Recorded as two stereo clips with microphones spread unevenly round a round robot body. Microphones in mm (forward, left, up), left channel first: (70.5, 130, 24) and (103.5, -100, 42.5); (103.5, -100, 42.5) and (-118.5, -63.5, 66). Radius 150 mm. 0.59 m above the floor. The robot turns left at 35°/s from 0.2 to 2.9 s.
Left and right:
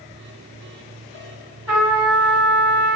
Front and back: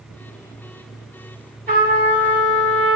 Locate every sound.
1.7 s a trumpet: 155° right, 1.4 m; by 3.0 s 160° left, 1.4 m